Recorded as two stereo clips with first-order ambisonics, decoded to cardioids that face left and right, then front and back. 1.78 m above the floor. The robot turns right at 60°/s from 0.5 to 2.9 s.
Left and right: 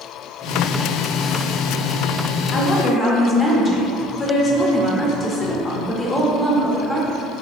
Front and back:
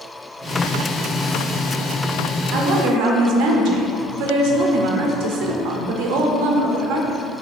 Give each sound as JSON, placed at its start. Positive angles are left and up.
{"t": 2.5, "sound": "a woman speaking", "azimuth_deg": 145, "distance_m": 0.6}